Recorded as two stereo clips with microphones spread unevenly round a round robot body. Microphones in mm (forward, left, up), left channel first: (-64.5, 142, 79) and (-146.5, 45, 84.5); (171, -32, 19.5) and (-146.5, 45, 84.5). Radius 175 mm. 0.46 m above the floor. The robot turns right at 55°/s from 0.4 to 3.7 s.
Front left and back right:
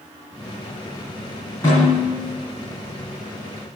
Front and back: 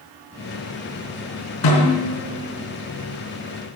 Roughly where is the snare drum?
Ahead right.